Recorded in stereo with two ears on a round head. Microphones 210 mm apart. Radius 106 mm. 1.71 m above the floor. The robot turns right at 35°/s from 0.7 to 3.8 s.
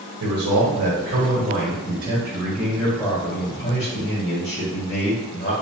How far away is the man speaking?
About 1.7 m.